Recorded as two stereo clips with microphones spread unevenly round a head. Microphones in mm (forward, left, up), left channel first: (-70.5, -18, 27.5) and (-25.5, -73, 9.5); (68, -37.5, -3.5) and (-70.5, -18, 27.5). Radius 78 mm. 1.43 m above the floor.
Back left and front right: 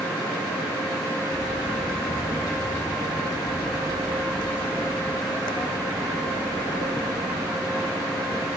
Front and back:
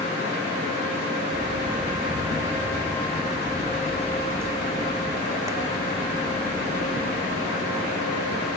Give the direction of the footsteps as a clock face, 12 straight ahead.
8 o'clock.